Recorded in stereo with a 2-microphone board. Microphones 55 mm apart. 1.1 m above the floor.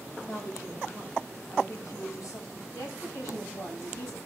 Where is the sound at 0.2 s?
80° left, 6.5 m.